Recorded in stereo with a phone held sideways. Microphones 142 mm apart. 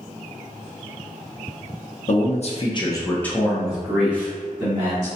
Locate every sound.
2.1 s a man speaking: 60° left (ahead or behind), 0.7 m; by 5.1 s 20° right (ahead or behind), 1.7 m